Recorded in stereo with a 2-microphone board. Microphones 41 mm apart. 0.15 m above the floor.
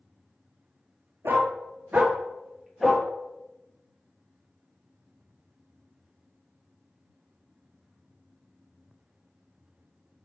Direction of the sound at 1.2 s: 75° right (ahead or behind).